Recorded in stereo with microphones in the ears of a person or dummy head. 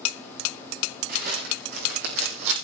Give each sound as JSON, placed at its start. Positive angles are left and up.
{"t": 1.1, "sound": "footsteps", "side_deg": -55, "distance_m": 5.5}